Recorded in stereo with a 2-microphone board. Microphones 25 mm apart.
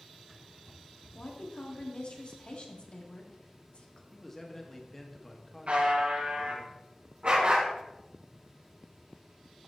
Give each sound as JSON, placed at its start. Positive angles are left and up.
{"t": 1.1, "sound": "a woman speaking", "side_deg": 45, "distance_m": 1.6}
{"t": 4.1, "sound": "a man speaking", "side_deg": 15, "distance_m": 1.4}
{"t": 5.7, "sound": "a buzzer", "side_deg": -65, "distance_m": 4.0}
{"t": 7.2, "sound": "a dog barking", "side_deg": -50, "distance_m": 3.5}